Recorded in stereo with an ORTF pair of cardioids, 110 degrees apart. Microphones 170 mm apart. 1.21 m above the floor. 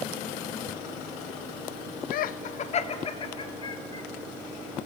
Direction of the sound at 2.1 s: 65° left.